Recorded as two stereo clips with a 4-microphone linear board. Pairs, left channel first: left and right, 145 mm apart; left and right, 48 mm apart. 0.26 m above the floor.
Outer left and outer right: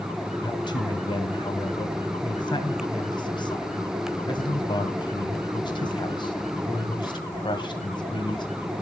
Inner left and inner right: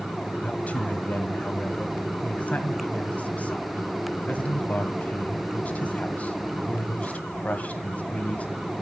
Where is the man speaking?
30° left (ahead or behind), 1.6 m.